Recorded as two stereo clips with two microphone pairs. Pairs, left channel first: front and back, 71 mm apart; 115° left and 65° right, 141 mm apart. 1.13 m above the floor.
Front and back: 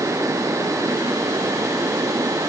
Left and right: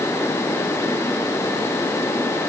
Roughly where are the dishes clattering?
No dishes clattering in this recording.